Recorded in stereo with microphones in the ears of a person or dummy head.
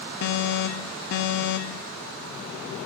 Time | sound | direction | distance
0.2 | an alarm | 55° left (ahead or behind) | 1.2 m